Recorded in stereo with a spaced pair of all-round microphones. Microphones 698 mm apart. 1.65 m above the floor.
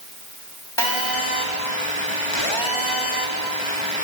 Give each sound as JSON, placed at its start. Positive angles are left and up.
{"t": 0.8, "sound": "a phone buzzing", "side_deg": 40, "distance_m": 4.0}